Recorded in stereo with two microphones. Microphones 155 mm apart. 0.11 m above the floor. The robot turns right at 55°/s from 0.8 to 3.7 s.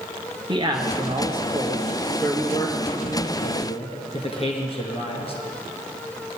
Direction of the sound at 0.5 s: 55° right.